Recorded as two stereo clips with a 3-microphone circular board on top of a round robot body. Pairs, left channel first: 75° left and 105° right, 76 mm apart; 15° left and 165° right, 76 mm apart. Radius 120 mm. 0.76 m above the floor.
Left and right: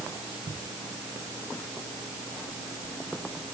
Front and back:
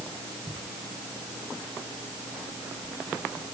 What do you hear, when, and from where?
Only background noise.